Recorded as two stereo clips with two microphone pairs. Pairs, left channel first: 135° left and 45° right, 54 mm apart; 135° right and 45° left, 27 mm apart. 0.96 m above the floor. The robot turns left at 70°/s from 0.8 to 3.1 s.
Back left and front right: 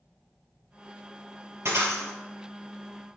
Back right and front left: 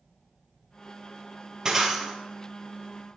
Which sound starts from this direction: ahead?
Breaking glass, at 1.6 s.